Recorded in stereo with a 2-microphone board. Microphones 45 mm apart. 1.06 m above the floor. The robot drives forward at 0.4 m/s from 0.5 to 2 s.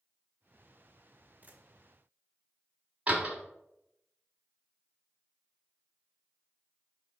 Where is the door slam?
30° right (ahead or behind), 1.1 m.